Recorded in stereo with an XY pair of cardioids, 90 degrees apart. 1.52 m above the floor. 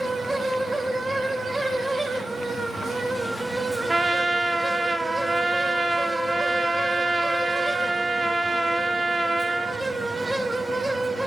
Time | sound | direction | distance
0.0 | a fan | 25° right | 0.8 m
3.9 | a trumpet | 20° right | 0.6 m